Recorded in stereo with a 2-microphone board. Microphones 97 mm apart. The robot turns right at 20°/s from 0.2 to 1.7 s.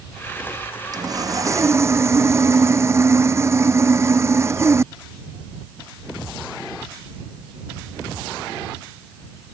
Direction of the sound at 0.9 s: 45° right (ahead or behind).